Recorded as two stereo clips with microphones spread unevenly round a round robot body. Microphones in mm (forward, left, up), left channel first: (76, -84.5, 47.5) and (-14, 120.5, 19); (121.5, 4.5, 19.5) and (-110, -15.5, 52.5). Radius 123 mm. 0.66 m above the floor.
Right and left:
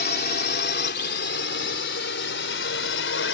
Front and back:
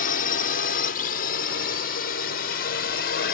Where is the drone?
30° right; by 3.4 s 35° right.